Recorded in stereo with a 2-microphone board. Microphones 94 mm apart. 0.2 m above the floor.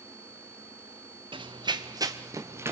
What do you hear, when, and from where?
1.3 s running footsteps: 65° right (ahead or behind), 1.7 m; by 2.7 s 25° right (ahead or behind), 2.5 m